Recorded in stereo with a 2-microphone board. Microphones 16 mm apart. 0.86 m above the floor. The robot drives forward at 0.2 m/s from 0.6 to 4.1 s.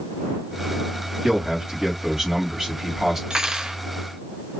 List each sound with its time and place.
1.2 s a man speaking: 50° right (ahead or behind), 2 m; by 3.2 s 45° right (ahead or behind), 2.5 m
3.3 s cutlery clinking: 65° right (ahead or behind), 0.7 m; by 3.8 s 60° right (ahead or behind), 0.8 m